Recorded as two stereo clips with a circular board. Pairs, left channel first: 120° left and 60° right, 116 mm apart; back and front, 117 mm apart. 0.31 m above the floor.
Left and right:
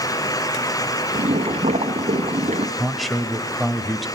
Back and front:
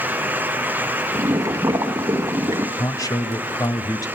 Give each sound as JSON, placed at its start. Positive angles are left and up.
{"t": 1.1, "sound": "boiling", "azimuth_deg": -60, "distance_m": 1.4}
{"t": 2.8, "sound": "a man speaking", "azimuth_deg": -150, "distance_m": 1.2}